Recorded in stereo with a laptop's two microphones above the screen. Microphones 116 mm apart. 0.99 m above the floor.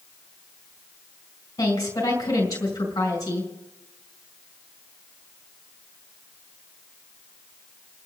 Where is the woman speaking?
30° left (ahead or behind), 4 m.